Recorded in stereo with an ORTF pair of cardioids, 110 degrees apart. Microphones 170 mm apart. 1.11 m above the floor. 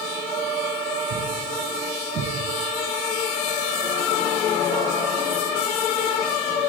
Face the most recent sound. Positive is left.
turn(degrees=-65)